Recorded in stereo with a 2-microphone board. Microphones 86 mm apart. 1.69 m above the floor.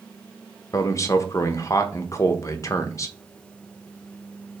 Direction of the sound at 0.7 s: 40° left (ahead or behind).